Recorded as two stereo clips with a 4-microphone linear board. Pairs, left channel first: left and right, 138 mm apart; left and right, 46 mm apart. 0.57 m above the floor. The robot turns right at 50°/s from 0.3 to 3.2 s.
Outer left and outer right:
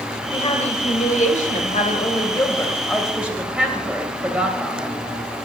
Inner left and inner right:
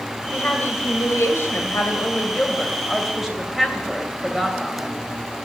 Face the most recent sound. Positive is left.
turn(degrees=-170)